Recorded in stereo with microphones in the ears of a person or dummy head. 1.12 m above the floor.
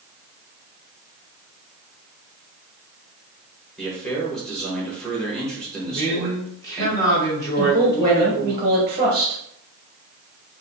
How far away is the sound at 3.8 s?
About 1.1 m.